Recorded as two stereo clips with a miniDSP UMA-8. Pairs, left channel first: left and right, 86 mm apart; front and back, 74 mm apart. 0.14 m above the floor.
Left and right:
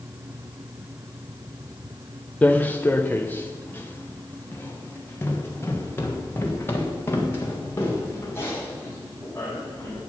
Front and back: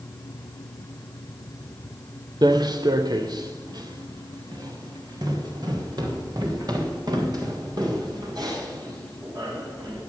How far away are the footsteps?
About 1.0 m.